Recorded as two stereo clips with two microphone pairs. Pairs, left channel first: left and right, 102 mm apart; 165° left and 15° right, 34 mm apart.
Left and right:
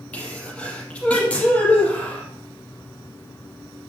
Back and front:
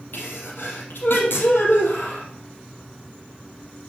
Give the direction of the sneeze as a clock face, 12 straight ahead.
7 o'clock.